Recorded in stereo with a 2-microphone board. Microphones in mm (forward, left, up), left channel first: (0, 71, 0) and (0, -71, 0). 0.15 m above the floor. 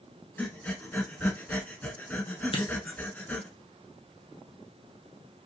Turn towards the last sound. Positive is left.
turn(degrees=40)  # may be behind; listen again after turning